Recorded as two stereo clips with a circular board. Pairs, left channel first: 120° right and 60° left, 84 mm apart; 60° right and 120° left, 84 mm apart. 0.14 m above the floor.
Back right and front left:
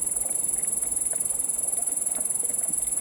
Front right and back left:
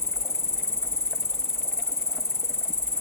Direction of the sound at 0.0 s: 5° right.